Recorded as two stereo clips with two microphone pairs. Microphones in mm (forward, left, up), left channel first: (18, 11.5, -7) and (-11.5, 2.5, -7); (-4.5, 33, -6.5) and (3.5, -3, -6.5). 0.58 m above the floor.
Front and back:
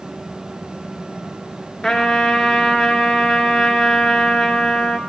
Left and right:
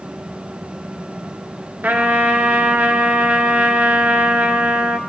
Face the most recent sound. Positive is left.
turn(degrees=-55)